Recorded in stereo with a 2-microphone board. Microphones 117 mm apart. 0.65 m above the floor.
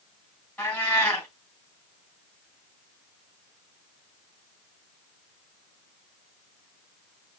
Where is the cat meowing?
10° left (ahead or behind), 2.5 m.